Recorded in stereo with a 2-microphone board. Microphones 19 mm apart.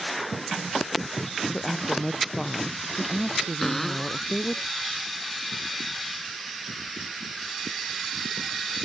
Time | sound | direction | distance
1.5 | a woman speaking | 20° left (ahead or behind) | ?
3.6 | a cupboard door | 20° left (ahead or behind) | ?